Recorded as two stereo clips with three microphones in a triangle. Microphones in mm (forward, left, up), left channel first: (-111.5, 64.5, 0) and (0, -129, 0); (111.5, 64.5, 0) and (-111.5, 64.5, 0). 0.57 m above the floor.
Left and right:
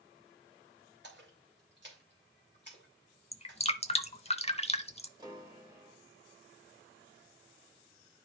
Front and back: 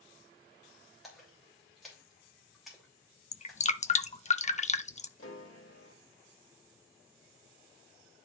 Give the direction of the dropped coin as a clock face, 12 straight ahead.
No dropped coin in this recording.